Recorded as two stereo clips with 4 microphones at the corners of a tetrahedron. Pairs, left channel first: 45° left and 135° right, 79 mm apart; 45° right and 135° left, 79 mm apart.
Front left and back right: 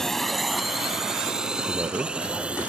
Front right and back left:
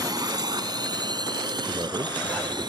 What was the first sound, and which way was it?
A drone, 130° left.